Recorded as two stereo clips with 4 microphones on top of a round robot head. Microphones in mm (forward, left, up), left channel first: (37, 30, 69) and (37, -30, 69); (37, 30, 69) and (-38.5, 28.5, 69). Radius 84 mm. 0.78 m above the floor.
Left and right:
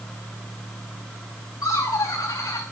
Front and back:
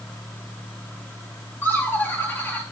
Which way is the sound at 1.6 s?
65° left.